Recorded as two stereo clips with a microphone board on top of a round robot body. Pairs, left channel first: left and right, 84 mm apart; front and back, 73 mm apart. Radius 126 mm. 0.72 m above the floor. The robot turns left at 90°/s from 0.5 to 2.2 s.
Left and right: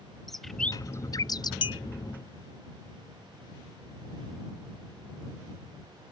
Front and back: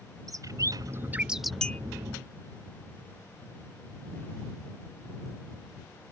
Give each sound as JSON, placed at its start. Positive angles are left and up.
{"t": 0.3, "sound": "a bird", "azimuth_deg": 175}
{"t": 1.6, "sound": "a clink", "azimuth_deg": 80}